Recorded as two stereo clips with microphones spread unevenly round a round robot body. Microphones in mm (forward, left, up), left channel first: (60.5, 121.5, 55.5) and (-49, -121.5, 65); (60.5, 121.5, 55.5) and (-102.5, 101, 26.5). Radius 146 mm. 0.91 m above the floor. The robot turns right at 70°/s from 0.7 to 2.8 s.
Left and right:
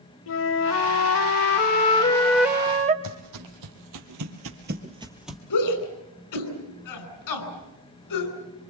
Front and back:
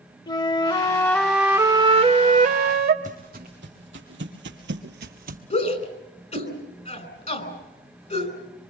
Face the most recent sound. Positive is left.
turn(degrees=55)